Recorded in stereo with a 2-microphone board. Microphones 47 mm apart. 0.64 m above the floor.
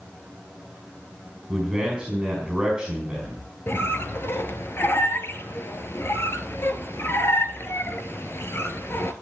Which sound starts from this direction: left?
A squeak, at 3.7 s.